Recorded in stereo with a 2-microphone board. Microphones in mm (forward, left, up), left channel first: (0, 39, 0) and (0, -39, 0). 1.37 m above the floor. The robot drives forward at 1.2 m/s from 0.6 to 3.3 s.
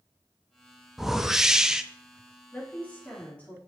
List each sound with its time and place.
1.0 s a whoosh: 5° right (ahead or behind), 1.0 m
2.5 s a woman speaking: 20° left (ahead or behind), 3 m; by 3.6 s 15° left (ahead or behind), 4 m